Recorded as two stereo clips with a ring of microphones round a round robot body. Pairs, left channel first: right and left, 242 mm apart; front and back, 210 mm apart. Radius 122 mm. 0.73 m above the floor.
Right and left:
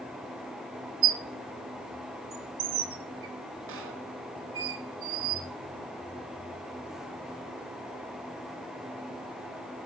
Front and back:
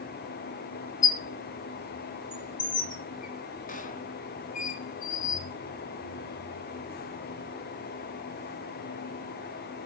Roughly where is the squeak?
Ahead left.